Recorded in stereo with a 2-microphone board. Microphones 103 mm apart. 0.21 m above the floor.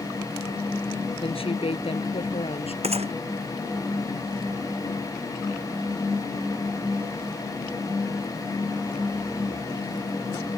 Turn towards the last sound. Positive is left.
turn(degrees=-80)